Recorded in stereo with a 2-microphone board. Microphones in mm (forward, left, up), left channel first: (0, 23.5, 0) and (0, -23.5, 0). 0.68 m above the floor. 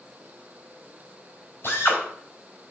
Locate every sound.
1.6 s a drill: 55° left (ahead or behind), 4 m